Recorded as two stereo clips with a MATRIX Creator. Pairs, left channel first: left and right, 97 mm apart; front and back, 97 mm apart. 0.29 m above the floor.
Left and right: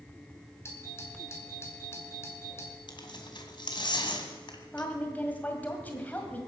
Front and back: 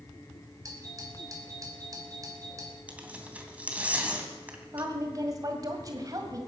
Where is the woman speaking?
155° left, 1.9 m.